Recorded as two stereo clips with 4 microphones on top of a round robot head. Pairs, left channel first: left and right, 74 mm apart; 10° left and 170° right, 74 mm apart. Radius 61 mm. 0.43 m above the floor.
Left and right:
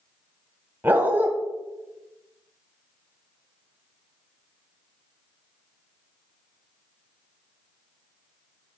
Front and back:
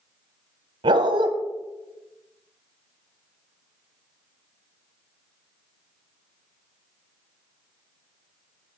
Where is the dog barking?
160° right, 1.3 m.